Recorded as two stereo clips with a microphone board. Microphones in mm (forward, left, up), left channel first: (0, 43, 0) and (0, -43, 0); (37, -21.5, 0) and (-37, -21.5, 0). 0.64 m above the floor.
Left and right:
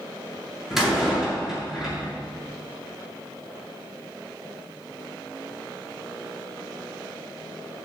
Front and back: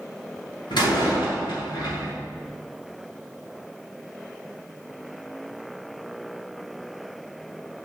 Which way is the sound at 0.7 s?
Straight ahead.